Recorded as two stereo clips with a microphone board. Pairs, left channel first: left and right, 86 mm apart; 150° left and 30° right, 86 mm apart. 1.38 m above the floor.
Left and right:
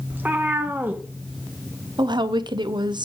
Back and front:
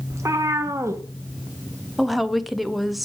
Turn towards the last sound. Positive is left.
turn(degrees=-120)